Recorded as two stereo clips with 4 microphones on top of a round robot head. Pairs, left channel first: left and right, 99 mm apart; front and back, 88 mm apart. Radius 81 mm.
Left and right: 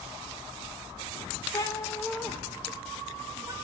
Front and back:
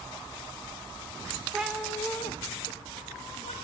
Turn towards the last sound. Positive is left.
turn(degrees=-20)